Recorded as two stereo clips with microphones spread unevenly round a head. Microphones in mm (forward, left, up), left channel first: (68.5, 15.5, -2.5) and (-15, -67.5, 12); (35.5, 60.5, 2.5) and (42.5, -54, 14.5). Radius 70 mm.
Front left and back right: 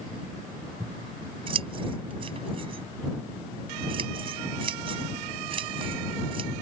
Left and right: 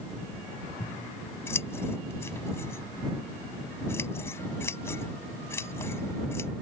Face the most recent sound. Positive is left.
turn(degrees=170)